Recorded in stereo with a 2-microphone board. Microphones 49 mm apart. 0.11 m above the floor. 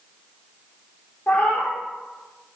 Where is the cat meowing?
35° left (ahead or behind), 0.8 m.